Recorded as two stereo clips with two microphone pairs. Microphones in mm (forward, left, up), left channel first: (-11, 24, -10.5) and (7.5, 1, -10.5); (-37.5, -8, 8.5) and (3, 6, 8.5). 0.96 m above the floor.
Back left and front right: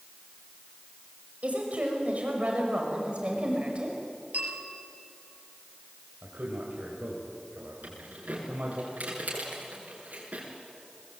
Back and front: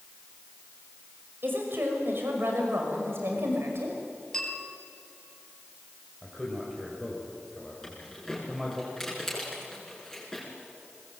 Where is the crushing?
No crushing in this recording.